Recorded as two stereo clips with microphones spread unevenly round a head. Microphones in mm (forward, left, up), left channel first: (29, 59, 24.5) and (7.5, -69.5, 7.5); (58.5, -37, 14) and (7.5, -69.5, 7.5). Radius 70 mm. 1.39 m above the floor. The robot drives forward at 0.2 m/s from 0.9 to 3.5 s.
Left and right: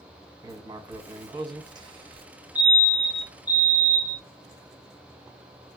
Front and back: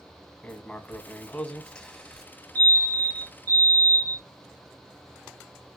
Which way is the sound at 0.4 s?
35° right.